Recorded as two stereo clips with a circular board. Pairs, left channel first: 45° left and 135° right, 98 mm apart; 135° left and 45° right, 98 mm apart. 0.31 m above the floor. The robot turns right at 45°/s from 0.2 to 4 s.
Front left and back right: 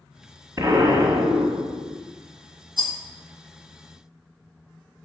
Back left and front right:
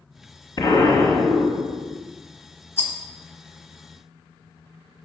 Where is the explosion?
170° left, 1.3 m; by 2.0 s 125° right, 1.3 m.